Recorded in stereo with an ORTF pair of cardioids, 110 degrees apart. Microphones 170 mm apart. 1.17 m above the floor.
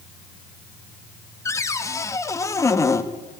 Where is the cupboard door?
20° left, 1.6 m.